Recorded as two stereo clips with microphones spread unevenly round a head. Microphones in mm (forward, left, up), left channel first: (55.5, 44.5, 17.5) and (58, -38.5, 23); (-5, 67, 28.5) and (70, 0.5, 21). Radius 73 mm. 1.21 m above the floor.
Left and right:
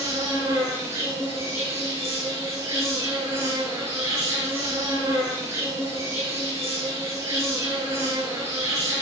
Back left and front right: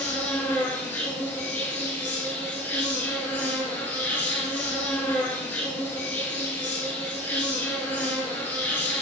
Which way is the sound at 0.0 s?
150° right.